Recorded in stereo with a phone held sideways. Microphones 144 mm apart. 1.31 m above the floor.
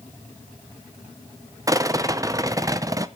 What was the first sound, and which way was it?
A rattle, 25° right (ahead or behind).